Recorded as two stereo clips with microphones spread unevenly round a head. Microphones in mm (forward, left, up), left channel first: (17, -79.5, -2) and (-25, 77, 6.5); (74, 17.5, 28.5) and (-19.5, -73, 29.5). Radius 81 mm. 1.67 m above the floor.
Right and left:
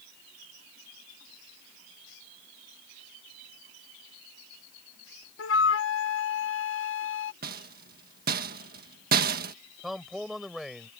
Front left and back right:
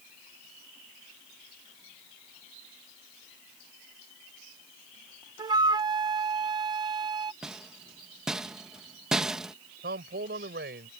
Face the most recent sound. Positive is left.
turn(degrees=-165)